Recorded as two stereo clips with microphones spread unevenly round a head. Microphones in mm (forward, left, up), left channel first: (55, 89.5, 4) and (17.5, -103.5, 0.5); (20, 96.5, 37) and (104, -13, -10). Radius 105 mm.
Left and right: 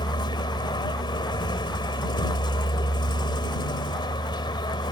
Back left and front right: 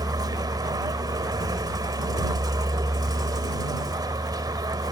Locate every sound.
0.0 s a vehicle: 15° left